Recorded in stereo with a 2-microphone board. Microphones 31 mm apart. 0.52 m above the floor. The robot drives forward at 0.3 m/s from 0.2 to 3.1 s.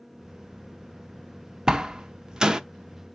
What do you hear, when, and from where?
1.7 s a door slam: 25° right (ahead or behind), 0.5 m